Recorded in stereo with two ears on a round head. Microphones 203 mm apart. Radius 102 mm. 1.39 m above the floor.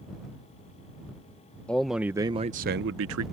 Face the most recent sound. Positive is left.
turn(degrees=-70)  # may be behind; listen again after turning